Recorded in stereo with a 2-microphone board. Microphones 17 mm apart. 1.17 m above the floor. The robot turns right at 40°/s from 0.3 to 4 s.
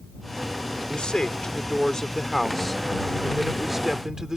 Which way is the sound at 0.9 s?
100° left.